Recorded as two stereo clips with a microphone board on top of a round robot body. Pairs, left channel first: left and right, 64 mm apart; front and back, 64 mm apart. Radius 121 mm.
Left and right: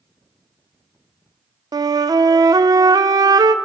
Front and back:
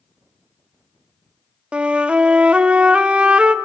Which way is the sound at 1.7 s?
105° right.